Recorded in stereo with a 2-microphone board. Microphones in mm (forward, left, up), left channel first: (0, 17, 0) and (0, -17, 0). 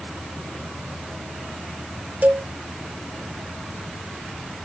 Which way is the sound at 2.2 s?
55° right (ahead or behind).